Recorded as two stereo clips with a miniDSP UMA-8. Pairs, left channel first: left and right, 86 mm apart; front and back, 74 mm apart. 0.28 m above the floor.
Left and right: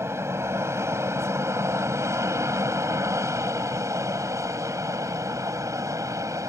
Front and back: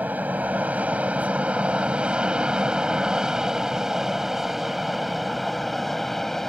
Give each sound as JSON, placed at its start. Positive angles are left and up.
{"t": 0.0, "sound": "an aircraft", "azimuth_deg": -125}